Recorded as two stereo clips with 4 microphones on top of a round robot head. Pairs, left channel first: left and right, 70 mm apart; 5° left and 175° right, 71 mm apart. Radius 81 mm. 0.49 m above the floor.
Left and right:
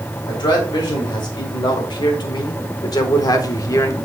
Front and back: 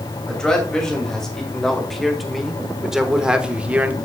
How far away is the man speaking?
About 2.5 m.